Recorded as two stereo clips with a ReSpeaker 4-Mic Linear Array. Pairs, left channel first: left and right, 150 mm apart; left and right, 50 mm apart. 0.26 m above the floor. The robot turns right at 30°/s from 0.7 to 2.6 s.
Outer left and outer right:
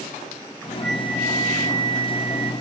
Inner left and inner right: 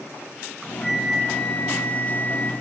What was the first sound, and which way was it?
A flute, 5° left.